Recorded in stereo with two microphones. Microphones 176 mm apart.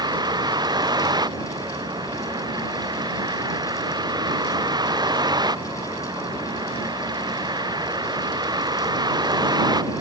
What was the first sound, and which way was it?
A vehicle, 25° right (ahead or behind).